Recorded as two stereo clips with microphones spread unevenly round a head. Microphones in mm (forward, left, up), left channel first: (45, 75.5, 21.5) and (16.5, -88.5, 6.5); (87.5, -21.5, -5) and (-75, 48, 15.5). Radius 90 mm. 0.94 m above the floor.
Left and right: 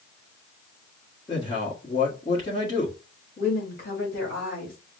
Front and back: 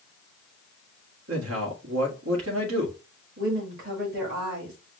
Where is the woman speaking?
125° left, 2.5 m.